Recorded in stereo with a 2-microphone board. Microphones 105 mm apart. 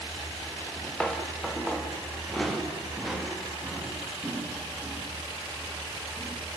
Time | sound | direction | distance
0.6 | footsteps | 10° left (ahead or behind) | 3 m